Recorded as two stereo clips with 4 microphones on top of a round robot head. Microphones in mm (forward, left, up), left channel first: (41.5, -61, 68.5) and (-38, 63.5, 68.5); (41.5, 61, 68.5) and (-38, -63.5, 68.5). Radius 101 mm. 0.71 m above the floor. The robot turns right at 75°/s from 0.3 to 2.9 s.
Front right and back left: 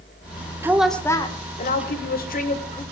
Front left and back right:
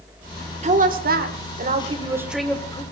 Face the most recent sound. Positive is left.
turn(degrees=5)